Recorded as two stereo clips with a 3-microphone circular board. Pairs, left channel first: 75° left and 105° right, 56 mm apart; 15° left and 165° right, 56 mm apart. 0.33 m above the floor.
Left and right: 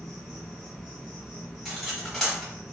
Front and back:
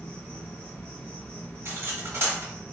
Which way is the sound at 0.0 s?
5° left.